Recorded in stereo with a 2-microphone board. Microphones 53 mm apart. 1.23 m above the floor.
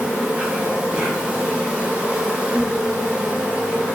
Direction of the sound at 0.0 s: 20° right (ahead or behind).